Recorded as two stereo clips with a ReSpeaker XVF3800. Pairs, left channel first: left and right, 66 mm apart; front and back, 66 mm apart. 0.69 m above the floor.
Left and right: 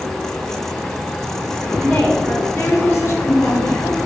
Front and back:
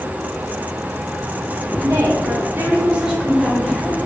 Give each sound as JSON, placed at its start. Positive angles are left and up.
{"t": 1.8, "sound": "a woman speaking", "azimuth_deg": -175, "distance_m": 0.9}